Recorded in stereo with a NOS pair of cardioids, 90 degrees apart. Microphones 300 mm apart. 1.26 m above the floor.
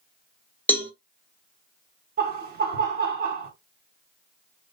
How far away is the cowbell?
About 0.7 m.